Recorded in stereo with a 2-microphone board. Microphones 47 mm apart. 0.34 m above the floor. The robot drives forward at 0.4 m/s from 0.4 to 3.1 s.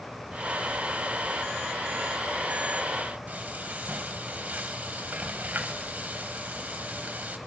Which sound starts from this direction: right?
Frying, at 3.3 s.